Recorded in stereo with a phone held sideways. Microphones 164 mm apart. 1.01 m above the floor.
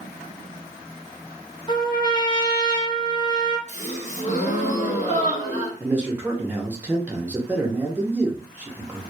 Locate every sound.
1.7 s a trumpet: 30° left (ahead or behind), 0.6 m
3.7 s a gasp: 50° left (ahead or behind), 0.8 m
5.8 s a man speaking: 10° right (ahead or behind), 0.5 m